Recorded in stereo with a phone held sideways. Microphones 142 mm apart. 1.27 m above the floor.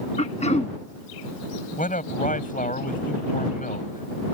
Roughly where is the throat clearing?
Left.